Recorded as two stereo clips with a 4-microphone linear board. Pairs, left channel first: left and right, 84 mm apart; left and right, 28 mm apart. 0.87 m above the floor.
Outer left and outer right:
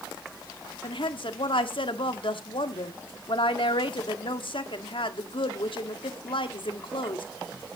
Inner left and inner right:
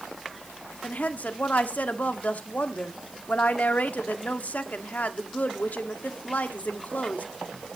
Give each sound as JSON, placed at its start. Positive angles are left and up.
{"t": 0.8, "sound": "a woman speaking", "side_deg": 75, "distance_m": 1.4}